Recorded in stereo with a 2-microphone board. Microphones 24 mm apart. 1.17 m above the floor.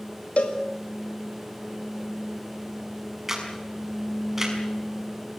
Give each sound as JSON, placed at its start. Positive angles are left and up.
{"t": 0.4, "sound": "a cowbell", "side_deg": 75, "distance_m": 3.0}
{"t": 3.3, "sound": "a camera shutter", "side_deg": -10, "distance_m": 6.0}